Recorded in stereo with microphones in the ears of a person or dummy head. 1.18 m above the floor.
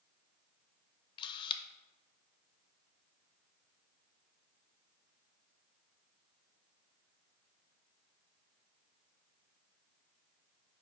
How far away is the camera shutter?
About 0.6 m.